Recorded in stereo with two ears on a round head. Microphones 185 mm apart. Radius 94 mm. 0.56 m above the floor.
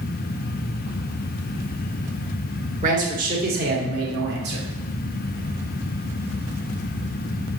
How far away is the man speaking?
About 1.5 m.